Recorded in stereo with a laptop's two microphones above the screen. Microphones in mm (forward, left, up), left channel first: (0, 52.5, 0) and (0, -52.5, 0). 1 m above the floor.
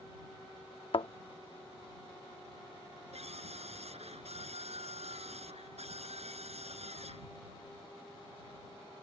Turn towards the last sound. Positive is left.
turn(degrees=-80)